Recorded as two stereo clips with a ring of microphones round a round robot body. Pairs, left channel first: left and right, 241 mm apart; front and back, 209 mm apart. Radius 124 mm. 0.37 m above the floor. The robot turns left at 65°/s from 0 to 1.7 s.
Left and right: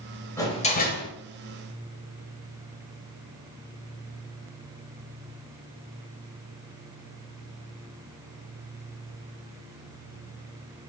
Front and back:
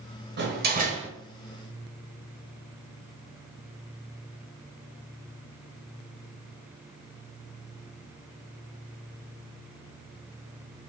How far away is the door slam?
About 1.3 m.